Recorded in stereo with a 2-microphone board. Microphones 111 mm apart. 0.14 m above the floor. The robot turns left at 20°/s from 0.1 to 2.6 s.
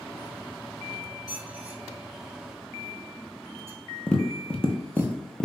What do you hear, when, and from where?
1.3 s a squeak: 5° right (ahead or behind), 1.1 m; by 5.1 s 25° right (ahead or behind), 1.1 m
4.1 s tapping: 10° left (ahead or behind), 0.7 m